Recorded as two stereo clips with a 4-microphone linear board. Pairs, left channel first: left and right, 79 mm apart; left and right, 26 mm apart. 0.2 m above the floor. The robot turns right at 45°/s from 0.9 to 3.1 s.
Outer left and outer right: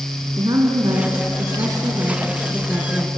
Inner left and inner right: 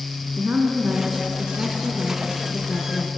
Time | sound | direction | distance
0.4 | a woman speaking | 95° right | 2.5 m